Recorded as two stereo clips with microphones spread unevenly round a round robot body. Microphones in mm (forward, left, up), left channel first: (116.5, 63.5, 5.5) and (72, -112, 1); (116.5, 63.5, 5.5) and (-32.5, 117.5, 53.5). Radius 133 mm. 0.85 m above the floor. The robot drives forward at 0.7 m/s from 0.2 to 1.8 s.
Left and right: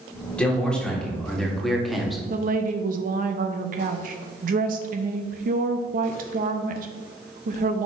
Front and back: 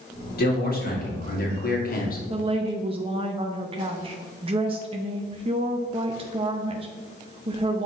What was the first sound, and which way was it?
A man speaking, 10° right.